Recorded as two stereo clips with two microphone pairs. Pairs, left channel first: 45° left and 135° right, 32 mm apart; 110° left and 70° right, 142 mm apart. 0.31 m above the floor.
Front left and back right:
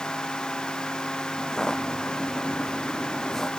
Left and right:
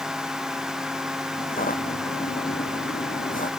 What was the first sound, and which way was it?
Footsteps, 115° left.